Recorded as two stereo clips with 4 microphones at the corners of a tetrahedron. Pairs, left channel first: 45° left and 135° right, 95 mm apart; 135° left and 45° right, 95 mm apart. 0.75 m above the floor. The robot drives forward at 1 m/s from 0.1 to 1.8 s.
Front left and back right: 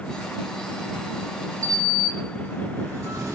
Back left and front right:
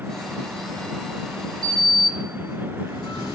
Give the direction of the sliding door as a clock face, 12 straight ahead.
6 o'clock.